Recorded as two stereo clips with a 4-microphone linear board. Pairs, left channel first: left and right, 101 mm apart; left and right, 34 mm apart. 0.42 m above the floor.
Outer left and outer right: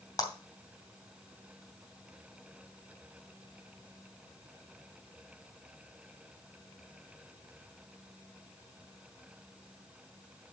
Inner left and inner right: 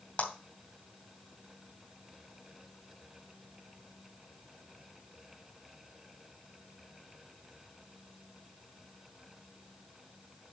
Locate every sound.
0.2 s a clap: 40° left (ahead or behind), 2.5 m